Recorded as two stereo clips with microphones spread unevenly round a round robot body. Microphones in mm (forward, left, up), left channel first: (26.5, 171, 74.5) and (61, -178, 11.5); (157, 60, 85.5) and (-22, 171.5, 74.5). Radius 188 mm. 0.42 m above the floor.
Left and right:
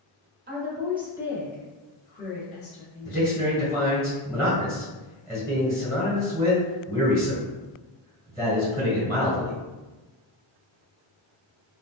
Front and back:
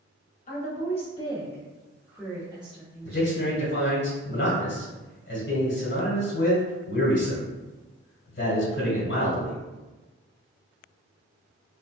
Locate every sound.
0.5 s a woman speaking: 60° right, 1.1 m; by 3.4 s 110° left, 1.2 m
3.0 s a man speaking: 5° right, 1.4 m